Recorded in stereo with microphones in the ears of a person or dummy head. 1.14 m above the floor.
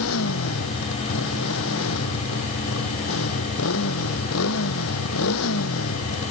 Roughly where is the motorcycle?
Left.